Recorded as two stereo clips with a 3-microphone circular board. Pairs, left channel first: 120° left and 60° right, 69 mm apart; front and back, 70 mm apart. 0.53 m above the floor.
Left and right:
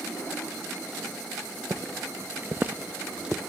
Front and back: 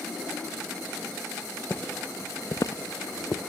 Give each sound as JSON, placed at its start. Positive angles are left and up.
{"t": 1.7, "sound": "footsteps", "azimuth_deg": -50, "distance_m": 0.8}